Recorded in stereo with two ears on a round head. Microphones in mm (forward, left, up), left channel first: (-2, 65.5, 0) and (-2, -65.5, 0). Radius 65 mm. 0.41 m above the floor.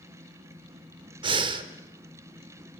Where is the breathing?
35° right (ahead or behind), 1.1 m.